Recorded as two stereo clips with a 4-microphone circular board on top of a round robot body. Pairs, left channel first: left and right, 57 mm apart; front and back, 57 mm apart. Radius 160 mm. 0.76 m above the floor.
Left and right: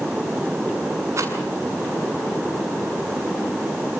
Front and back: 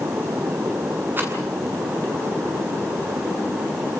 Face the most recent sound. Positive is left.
turn(degrees=-125)